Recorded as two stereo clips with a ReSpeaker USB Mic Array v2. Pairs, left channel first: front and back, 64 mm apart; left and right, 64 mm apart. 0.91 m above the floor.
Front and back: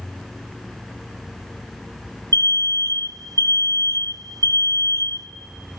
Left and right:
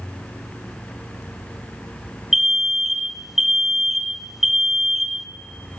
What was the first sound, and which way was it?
An alarm, 175° right.